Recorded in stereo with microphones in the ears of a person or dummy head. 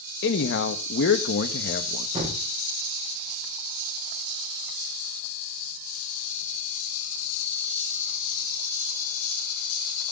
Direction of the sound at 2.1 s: 30° right (ahead or behind).